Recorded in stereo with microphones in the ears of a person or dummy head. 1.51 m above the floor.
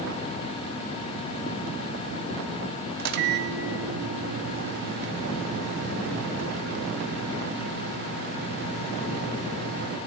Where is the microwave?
55° right (ahead or behind), 0.6 m.